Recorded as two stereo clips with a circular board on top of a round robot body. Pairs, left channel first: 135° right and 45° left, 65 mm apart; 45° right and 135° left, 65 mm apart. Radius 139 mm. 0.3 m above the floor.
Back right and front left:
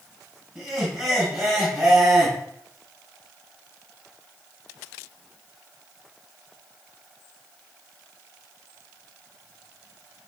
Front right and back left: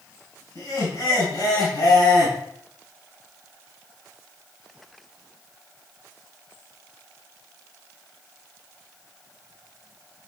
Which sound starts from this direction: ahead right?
Laughter, at 0.6 s.